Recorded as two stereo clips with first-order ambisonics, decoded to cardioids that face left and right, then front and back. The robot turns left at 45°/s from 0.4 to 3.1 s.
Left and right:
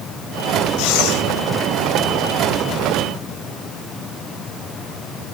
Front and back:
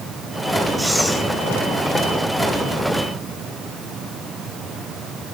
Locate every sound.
0.8 s breathing: 95° left, 2.5 m; by 1.2 s 75° left, 2.5 m